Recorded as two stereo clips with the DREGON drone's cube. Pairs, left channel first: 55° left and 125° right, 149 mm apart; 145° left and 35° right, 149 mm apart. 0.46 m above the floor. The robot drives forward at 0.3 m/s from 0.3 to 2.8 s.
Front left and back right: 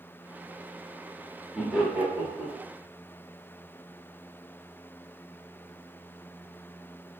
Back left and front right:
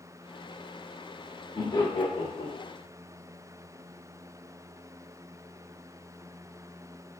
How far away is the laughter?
About 0.9 m.